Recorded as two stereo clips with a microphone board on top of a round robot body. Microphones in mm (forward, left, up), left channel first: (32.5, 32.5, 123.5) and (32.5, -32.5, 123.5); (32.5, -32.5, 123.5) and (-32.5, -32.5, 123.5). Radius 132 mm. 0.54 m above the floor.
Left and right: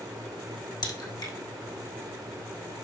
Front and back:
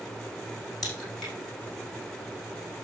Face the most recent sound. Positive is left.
turn(degrees=80)